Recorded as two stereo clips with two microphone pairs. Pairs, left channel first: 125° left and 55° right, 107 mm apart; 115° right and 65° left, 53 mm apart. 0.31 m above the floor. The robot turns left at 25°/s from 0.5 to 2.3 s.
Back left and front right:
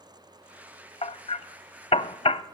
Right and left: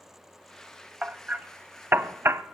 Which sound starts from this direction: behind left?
Hammering, at 1.0 s.